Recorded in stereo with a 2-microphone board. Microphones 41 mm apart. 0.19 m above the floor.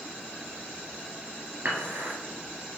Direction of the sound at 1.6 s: 60° right (ahead or behind).